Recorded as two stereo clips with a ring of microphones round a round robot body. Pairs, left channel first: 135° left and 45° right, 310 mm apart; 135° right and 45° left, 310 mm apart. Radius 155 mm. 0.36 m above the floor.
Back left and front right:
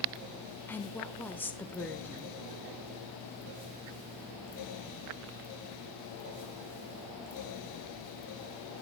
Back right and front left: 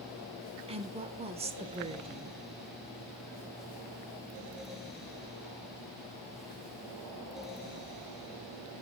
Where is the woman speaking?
65° left, 0.8 m.